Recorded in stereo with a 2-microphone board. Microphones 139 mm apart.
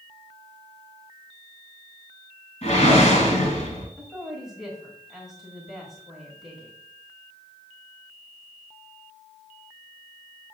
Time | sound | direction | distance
2.6 | a whoosh | 50° left (ahead or behind) | 2 m
4.0 | a woman speaking | centre (ahead or behind) | 1.5 m